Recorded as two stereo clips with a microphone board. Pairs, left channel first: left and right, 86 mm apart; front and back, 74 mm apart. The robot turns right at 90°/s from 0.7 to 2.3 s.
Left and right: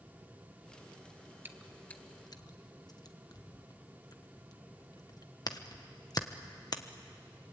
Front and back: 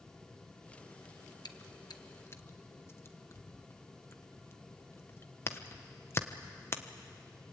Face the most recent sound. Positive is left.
turn(degrees=50)